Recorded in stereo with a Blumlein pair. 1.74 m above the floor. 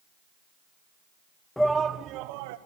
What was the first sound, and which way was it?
A shout, 5° left.